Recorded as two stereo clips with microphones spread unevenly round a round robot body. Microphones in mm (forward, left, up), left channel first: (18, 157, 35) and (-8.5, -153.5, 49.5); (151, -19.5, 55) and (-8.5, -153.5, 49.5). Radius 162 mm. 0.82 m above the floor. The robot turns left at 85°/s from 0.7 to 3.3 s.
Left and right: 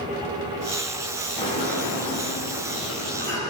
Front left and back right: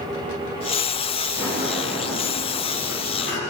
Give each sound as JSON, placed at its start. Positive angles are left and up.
{"t": 1.4, "sound": "a sliding door", "azimuth_deg": 170, "distance_m": 5.5}